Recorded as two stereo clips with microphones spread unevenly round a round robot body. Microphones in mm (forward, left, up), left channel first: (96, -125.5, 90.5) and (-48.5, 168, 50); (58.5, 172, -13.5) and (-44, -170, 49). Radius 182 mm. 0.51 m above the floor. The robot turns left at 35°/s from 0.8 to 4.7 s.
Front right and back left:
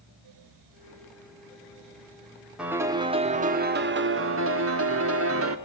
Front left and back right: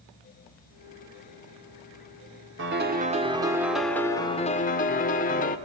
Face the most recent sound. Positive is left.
turn(degrees=120)